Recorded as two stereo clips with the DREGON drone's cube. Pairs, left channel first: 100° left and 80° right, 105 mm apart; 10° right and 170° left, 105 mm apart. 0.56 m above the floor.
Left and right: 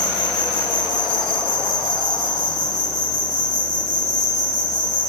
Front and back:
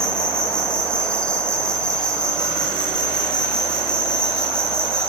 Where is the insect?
70° left, 4 m.